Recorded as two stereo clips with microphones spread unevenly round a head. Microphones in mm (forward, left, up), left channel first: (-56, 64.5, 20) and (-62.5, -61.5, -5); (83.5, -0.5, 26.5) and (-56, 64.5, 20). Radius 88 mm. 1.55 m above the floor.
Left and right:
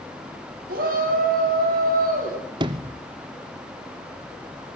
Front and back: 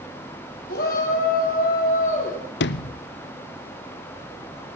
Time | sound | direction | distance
0.7 | a shout | 65° right | 4.5 m
2.6 | a sliding door | 35° right | 0.6 m